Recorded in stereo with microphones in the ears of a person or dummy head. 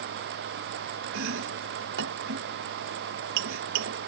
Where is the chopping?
75° right (ahead or behind).